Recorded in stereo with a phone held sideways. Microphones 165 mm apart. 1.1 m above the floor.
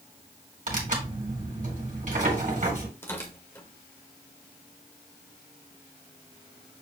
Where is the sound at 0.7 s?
55° right (ahead or behind), 2 m.